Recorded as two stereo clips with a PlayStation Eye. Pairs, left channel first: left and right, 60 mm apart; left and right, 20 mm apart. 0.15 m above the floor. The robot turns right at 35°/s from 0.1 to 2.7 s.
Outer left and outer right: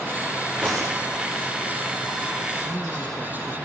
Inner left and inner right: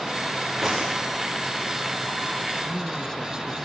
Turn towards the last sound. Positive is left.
turn(degrees=5)  # may be behind; listen again after turning